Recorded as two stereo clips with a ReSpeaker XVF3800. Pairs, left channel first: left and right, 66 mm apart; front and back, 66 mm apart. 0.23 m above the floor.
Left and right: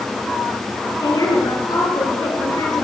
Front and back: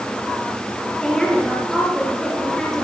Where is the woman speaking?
80° left, 4.5 m.